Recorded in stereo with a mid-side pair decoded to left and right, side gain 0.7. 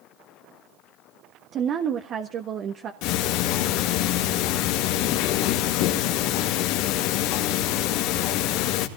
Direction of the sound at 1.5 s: 45° right.